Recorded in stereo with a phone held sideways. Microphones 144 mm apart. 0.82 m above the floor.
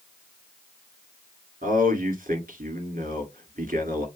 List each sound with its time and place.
1.6 s a man speaking: 70° right (ahead or behind), 1.8 m